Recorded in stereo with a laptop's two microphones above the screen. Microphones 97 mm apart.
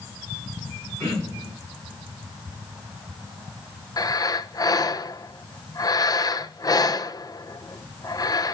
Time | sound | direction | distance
1.0 | throat clearing | 25° right (ahead or behind) | 10 m
4.0 | breathing | 40° left (ahead or behind) | 0.7 m